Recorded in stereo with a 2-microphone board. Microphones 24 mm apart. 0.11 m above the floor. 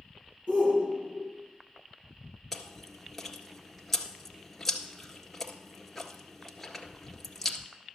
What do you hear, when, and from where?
0.5 s a shout: 65° right (ahead or behind), 4 m
2.5 s chewing: 5° left (ahead or behind), 1.7 m